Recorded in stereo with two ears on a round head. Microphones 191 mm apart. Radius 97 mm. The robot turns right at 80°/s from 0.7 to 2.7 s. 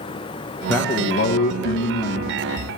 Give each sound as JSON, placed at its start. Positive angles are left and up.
{"t": 0.7, "sound": "a man speaking", "azimuth_deg": 10, "distance_m": 1.0}